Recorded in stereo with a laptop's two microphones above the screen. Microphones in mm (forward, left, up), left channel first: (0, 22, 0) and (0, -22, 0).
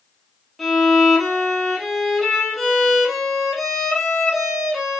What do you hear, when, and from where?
0.6 s a violin: centre (ahead or behind), 0.9 m